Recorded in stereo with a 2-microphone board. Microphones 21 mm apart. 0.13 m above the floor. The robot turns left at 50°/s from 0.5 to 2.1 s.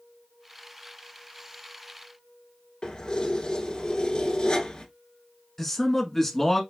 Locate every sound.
2.8 s keys jangling: 50° left (ahead or behind), 1.5 m
5.6 s a man speaking: 15° left (ahead or behind), 1.1 m